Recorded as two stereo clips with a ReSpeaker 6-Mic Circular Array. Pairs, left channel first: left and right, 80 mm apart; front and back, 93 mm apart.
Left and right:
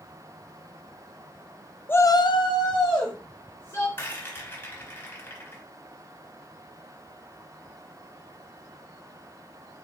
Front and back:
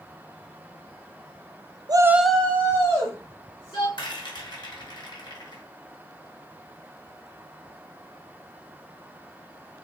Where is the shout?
150° left, 0.5 m; by 3.9 s 50° left, 2.5 m.